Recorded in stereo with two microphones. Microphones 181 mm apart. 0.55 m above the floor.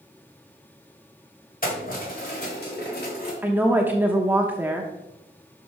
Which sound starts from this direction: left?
Keys jangling, at 1.6 s.